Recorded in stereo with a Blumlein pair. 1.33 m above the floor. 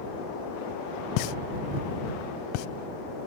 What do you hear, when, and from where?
1.2 s a pop: 45° left